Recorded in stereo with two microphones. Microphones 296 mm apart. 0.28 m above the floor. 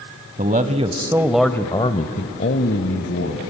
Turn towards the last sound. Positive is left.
turn(degrees=55)  # may be behind; listen again after turning